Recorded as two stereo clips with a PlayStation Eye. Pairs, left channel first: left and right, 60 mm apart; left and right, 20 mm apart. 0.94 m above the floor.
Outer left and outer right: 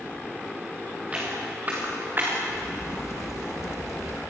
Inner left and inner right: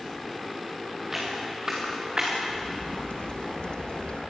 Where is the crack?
55° left (ahead or behind), 1.1 m.